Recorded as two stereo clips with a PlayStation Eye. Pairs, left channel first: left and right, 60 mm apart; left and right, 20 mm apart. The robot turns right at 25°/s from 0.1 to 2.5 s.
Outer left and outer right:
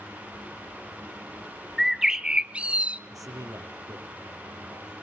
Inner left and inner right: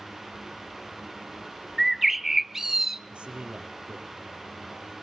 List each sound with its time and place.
1.8 s a bird: 5° right (ahead or behind), 0.9 m; by 3.0 s 20° right (ahead or behind), 0.9 m
3.1 s a man speaking: 70° right (ahead or behind), 4 m